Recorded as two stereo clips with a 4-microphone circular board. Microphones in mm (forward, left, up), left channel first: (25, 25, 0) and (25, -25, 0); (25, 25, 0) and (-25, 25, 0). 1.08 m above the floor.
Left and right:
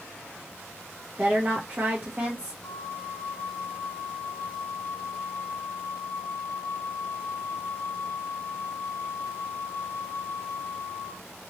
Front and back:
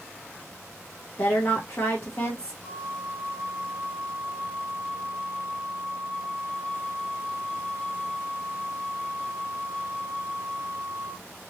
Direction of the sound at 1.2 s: 30° right.